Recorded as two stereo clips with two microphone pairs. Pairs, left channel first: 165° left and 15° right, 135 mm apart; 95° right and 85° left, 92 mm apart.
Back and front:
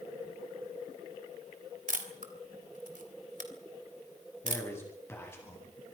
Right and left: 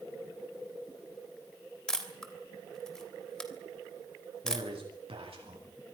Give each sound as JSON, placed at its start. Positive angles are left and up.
{"t": 1.9, "sound": "a camera shutter", "azimuth_deg": -10, "distance_m": 3.0}
{"t": 4.4, "sound": "a man speaking", "azimuth_deg": 90, "distance_m": 9.5}